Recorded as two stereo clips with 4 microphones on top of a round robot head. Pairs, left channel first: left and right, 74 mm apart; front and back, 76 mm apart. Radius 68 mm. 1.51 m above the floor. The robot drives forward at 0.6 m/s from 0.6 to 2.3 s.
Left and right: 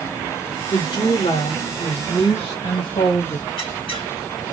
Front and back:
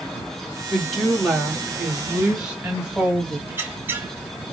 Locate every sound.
0.7 s a woman speaking: 85° left, 2.5 m; by 3.4 s 105° left, 3 m
3.5 s a squeak: 115° left, 3.5 m